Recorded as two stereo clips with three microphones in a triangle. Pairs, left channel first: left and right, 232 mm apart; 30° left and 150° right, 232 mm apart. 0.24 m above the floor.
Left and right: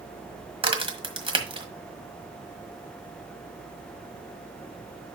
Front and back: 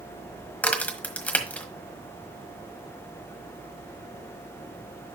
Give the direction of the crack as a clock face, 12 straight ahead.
2 o'clock.